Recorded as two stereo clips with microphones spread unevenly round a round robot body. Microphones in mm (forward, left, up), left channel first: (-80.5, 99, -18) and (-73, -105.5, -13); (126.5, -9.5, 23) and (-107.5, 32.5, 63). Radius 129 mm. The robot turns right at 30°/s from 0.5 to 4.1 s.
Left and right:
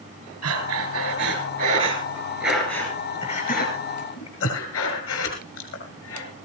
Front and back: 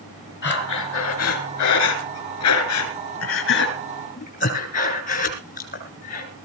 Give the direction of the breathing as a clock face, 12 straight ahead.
2 o'clock.